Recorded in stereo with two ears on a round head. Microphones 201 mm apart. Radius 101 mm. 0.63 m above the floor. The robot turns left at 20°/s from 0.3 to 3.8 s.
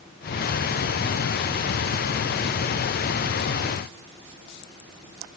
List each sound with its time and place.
Only background noise.